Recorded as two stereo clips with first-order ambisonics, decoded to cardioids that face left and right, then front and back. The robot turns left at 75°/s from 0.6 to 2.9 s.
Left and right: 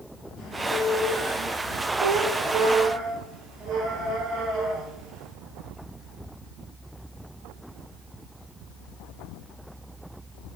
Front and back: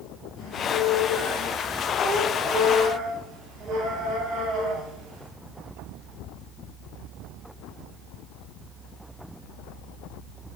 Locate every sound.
0.4 s a squeak: 35° left, 2.5 m; by 5.3 s 135° right, 2.5 m